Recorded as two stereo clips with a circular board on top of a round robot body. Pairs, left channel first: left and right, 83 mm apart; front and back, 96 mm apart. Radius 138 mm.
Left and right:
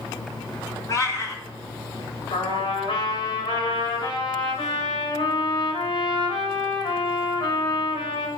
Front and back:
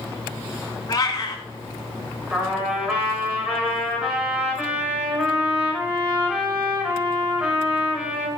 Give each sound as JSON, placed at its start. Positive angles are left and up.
{"t": 0.9, "sound": "a cat meowing", "azimuth_deg": 45, "distance_m": 3.5}
{"t": 2.3, "sound": "a trumpet", "azimuth_deg": 100, "distance_m": 5.5}